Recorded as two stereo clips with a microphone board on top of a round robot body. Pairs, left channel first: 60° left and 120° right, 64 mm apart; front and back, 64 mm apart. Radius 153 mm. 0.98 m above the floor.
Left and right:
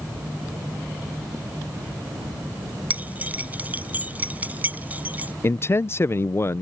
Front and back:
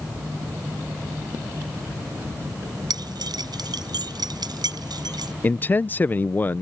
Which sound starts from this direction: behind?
Keys jangling, at 2.9 s.